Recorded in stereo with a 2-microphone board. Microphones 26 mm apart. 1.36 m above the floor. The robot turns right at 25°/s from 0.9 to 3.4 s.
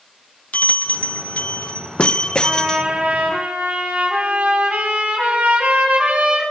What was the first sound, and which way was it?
A bell, 105° left.